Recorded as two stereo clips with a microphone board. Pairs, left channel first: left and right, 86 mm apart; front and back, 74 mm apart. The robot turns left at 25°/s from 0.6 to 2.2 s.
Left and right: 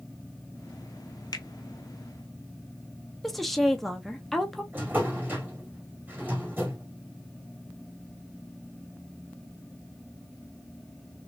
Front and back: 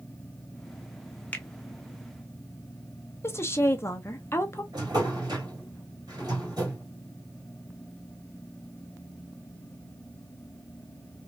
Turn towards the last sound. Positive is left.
turn(degrees=-160)